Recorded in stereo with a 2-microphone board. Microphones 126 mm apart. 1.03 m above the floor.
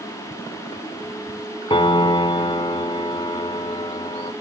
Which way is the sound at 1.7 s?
45° left (ahead or behind).